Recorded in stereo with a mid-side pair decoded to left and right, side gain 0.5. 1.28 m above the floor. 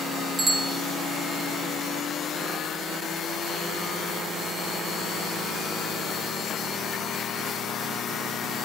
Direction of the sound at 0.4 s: 35° right.